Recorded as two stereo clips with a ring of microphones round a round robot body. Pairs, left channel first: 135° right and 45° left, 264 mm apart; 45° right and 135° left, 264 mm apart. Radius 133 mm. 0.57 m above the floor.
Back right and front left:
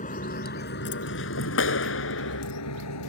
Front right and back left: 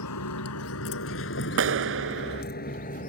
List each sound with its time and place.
0.0 s a vehicle: 70° right; by 3.1 s 105° right
1.6 s a clap: straight behind